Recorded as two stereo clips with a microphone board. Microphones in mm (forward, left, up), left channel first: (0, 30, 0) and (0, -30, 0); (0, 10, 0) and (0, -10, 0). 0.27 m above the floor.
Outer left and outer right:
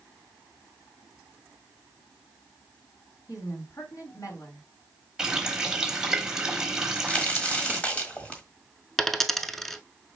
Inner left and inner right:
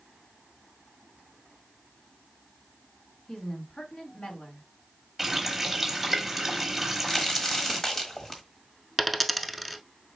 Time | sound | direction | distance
3.3 | a woman speaking | 70° left (ahead or behind) | 3.5 m
5.2 | a running tap | 10° right (ahead or behind) | 1.0 m
6.8 | a crack | 20° left (ahead or behind) | 1.4 m
9.0 | a dropped coin | 5° left (ahead or behind) | 0.5 m